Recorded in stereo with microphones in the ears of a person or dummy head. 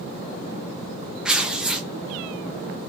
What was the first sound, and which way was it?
Tearing paper, 5° right (ahead or behind).